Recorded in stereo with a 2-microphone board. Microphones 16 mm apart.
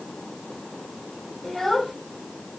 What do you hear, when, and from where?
1.4 s a child speaking: 20° left (ahead or behind), 3 m